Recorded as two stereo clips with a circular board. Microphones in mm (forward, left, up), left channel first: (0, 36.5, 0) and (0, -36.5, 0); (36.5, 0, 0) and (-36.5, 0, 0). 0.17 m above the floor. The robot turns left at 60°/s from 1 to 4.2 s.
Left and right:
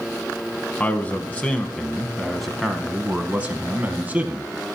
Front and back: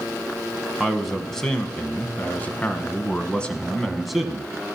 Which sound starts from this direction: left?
A man speaking, at 0.8 s.